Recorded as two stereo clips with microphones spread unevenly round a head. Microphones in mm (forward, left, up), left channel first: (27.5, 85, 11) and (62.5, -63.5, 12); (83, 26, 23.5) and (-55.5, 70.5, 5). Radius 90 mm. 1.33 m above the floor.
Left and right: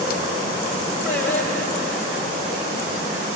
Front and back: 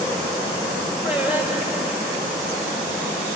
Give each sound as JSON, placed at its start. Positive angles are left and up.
{"t": 1.1, "sound": "singing", "azimuth_deg": 80, "distance_m": 4.0}